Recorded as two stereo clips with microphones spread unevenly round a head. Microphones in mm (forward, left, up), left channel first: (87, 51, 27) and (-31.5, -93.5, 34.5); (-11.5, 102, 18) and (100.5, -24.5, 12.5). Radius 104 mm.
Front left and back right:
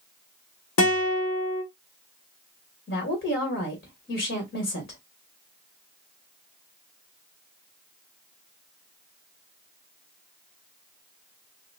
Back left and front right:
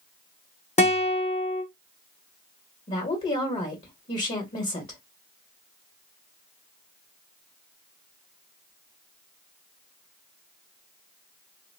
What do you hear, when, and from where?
0.8 s a guitar: 80° left, 1.3 m
2.9 s a woman speaking: 90° left, 1.9 m